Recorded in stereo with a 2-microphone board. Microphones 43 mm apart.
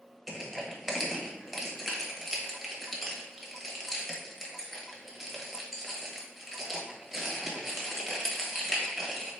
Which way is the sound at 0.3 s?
Centre (ahead or behind).